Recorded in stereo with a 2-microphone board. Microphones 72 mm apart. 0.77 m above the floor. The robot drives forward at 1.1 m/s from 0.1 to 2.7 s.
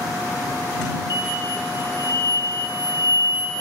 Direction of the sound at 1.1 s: 70° left (ahead or behind).